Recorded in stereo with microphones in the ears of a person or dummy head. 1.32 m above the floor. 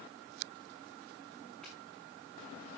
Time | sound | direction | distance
1.6 | footsteps | 5° left (ahead or behind) | 6 m